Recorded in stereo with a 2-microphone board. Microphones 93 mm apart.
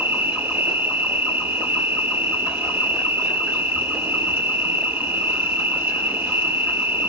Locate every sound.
0.0 s an insect: 25° right (ahead or behind), 1.5 m